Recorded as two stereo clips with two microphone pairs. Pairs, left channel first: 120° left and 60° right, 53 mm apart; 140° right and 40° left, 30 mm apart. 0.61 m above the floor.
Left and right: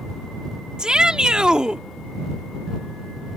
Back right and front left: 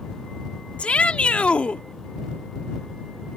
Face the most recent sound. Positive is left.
turn(degrees=-130)